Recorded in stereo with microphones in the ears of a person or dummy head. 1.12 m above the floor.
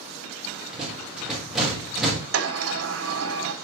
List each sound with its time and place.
0.7 s a rattle: 5° right (ahead or behind), 3.5 m
2.3 s a sliding door: 70° right (ahead or behind), 2.0 m